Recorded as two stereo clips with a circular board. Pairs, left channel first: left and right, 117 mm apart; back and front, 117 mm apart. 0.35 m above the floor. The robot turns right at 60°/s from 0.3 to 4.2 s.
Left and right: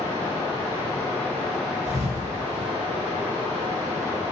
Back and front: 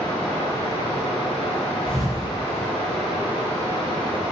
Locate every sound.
0.0 s running water: 105° left, 1.7 m; by 4.3 s 20° right, 1.7 m
1.9 s a thud: 105° right, 1.4 m; by 2.7 s 50° right, 1.4 m